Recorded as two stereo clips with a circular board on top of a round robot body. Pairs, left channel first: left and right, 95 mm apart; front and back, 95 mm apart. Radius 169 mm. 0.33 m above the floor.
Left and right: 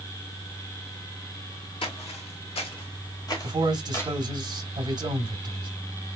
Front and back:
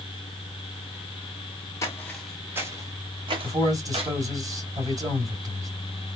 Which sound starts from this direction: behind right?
A man speaking, at 3.4 s.